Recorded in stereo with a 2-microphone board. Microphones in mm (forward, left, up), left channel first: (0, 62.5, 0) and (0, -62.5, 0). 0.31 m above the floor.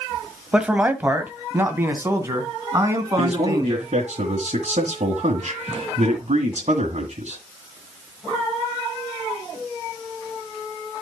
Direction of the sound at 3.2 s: 60° right (ahead or behind).